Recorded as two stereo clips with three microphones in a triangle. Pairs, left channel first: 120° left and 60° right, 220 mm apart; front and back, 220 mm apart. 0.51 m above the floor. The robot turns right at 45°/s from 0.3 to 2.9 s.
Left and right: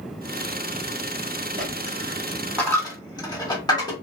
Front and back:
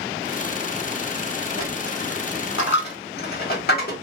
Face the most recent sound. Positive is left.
turn(degrees=50)